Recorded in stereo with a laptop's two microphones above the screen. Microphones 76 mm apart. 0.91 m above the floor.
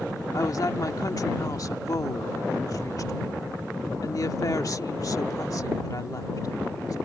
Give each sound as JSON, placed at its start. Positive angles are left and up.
{"t": 0.3, "sound": "a woman speaking", "side_deg": 50}